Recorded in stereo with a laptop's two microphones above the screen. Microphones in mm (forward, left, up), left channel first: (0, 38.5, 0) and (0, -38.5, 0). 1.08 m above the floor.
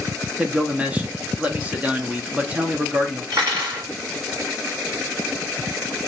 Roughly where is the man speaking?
Centre.